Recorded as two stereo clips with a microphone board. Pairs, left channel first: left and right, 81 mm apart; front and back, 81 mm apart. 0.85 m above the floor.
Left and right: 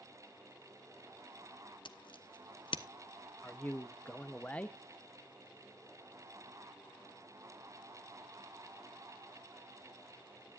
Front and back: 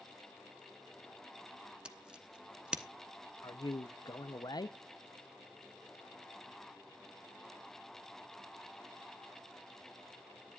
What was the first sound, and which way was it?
Scissors, 105° left.